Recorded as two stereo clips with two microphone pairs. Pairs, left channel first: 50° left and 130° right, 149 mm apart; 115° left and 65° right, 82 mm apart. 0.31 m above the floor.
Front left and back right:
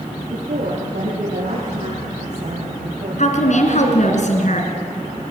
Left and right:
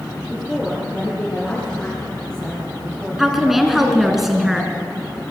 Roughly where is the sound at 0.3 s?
Behind.